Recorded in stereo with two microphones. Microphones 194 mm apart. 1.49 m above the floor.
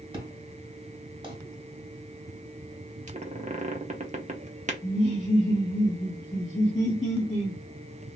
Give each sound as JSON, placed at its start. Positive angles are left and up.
{"t": 0.1, "sound": "an explosion", "side_deg": -25, "distance_m": 1.4}
{"t": 3.1, "sound": "a squeak", "side_deg": -40, "distance_m": 0.6}
{"t": 4.8, "sound": "laughter", "side_deg": 30, "distance_m": 0.8}